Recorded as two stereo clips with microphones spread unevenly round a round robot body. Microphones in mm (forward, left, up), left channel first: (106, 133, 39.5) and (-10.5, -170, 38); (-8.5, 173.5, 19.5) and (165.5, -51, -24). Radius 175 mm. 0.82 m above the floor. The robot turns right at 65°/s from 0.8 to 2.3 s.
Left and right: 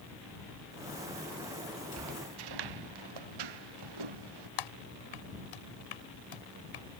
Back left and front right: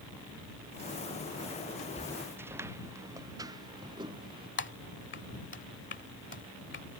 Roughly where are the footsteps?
Behind.